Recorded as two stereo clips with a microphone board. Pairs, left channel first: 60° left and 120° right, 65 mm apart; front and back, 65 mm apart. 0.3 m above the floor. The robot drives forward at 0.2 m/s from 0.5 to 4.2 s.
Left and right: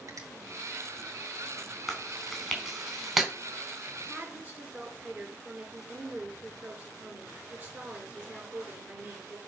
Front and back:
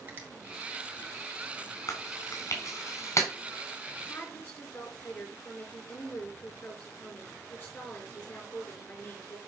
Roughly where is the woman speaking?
Ahead right.